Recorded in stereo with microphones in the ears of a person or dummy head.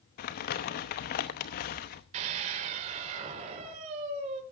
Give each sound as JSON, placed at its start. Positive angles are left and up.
{"t": 0.2, "sound": "crumpling", "side_deg": 40, "distance_m": 0.9}
{"t": 2.1, "sound": "a scream", "side_deg": -40, "distance_m": 4.0}